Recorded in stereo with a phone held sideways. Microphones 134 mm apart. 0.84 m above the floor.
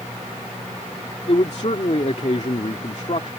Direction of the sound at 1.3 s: 50° left (ahead or behind).